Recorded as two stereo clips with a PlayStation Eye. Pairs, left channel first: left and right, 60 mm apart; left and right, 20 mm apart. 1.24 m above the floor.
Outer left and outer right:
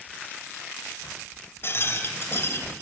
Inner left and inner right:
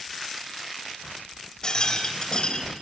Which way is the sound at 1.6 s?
40° left (ahead or behind).